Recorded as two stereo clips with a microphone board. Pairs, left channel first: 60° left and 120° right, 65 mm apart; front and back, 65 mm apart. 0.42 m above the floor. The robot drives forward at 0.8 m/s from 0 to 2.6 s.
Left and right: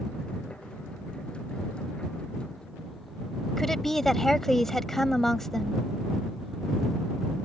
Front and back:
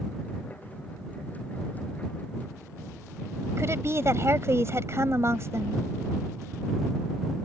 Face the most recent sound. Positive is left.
turn(degrees=145)